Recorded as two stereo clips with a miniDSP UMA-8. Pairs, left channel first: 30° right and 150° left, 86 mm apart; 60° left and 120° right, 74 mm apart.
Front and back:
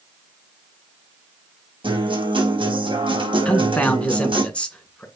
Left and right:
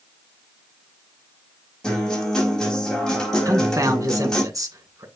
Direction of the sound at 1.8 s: 145° left.